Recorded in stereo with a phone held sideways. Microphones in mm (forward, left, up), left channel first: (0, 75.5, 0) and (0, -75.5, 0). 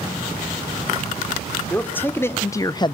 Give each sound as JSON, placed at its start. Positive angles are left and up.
{"t": 1.7, "sound": "a man speaking", "side_deg": 10, "distance_m": 2.5}